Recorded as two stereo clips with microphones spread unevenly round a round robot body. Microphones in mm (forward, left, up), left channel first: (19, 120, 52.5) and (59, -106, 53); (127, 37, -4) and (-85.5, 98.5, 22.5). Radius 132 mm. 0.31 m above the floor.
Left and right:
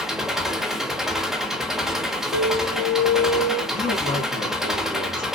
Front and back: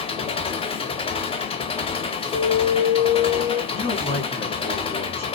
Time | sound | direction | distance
0.0 | an engine running | 5° left | 0.8 m
2.3 | an alarm | 50° left | 1.8 m
3.7 | a man speaking | 45° left | 2.5 m